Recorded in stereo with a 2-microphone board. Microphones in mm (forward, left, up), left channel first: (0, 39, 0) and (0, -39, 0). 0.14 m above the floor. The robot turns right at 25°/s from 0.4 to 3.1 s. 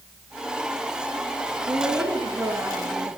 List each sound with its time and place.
1.7 s a woman speaking: 60° right, 3 m; by 3.2 s 25° right, 3 m